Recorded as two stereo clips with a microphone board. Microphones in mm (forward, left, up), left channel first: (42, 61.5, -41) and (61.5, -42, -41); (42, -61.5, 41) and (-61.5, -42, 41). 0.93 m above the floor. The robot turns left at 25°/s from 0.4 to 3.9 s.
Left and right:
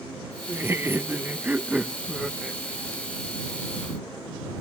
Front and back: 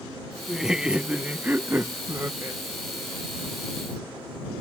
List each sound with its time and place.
0.5 s laughter: 105° right; by 2.6 s 160° right